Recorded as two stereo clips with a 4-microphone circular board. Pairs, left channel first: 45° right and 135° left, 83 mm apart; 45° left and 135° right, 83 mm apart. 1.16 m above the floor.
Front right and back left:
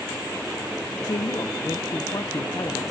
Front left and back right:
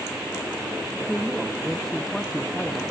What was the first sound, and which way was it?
A woman speaking, 40° right.